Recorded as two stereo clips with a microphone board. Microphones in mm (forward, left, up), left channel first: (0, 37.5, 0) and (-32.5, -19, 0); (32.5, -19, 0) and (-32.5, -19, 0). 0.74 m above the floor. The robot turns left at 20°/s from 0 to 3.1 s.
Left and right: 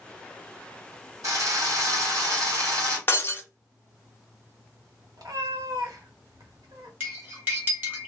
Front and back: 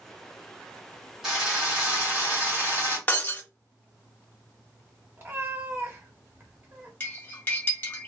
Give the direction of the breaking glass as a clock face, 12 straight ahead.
11 o'clock.